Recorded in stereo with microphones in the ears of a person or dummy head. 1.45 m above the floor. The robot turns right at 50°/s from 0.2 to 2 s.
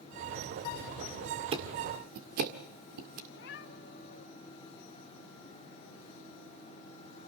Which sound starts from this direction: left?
A cat meowing, at 3.3 s.